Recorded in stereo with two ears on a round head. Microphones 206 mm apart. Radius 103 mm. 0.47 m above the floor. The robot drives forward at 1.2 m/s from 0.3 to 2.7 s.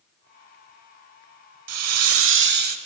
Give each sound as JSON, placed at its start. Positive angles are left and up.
{"t": 1.7, "sound": "a hiss", "side_deg": -70, "distance_m": 1.0}